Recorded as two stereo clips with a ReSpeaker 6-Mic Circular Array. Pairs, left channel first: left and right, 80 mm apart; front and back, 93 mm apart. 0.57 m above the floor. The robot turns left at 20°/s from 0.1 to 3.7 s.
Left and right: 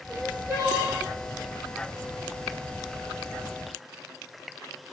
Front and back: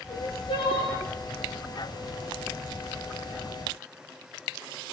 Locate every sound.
0.1 s crying: 15° right, 9 m; by 1.0 s 35° right, 9 m